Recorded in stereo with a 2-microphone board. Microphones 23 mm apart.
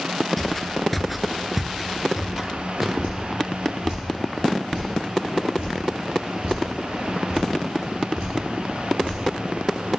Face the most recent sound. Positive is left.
turn(degrees=-50)  # may be behind; listen again after turning